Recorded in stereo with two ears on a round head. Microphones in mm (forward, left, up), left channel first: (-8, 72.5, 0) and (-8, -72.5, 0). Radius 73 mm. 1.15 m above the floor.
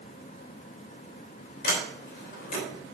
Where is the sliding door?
60° left (ahead or behind), 3 m.